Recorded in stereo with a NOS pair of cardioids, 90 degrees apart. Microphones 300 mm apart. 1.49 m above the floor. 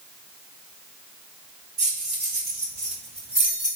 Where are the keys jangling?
60° right, 1.9 m; by 3.8 s 20° right, 2.5 m.